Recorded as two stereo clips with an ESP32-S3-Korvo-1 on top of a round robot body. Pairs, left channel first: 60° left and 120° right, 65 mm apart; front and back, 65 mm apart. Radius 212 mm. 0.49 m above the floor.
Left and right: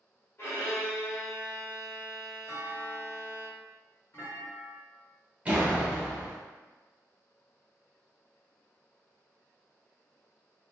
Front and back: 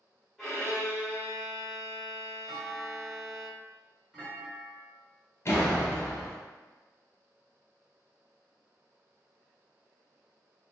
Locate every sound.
0.4 s a violin: 90° left, 1.6 m
2.5 s a clunk: 100° left, 1.7 m
5.5 s a door slam: 50° right, 0.9 m